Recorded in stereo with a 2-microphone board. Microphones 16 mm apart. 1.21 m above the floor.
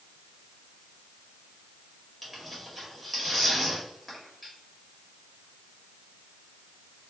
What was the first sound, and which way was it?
Tearing paper, 5° right (ahead or behind).